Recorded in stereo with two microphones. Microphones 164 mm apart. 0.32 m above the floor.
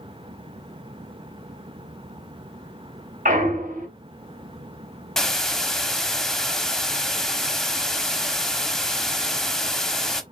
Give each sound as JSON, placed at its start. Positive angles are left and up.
{"t": 3.2, "sound": "a clunk", "side_deg": -55, "distance_m": 1.4}
{"t": 5.2, "sound": "a hiss", "side_deg": 5, "distance_m": 0.7}